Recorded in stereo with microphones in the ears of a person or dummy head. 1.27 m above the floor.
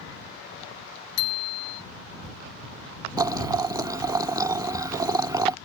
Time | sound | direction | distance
1.2 | a bicycle bell | 85° left | ?
3.2 | boiling | 15° right (ahead or behind) | ?